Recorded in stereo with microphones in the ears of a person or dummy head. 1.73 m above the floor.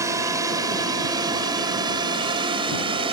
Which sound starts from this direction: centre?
A drone, at 0.0 s.